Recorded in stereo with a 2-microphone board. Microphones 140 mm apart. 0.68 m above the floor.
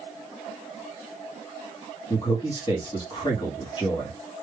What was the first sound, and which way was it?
A man speaking, 35° left (ahead or behind).